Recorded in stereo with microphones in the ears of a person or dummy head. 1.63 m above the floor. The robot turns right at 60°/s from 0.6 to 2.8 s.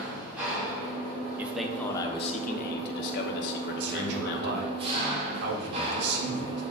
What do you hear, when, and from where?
0.0 s an engine running: 170° right, 1.4 m; by 6.7 s 35° right, 1.4 m
1.4 s a man speaking: 10° right, 0.8 m; by 4.7 s 75° left, 0.8 m
3.8 s a man speaking: 65° right (ahead or behind), 1.3 m